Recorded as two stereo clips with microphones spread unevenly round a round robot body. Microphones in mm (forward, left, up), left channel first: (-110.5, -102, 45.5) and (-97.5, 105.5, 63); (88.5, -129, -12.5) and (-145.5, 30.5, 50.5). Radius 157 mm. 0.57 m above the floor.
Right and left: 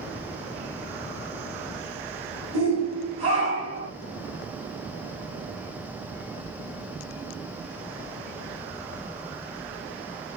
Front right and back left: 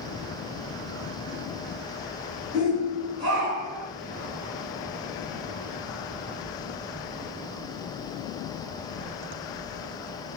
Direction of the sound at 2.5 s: 90° left.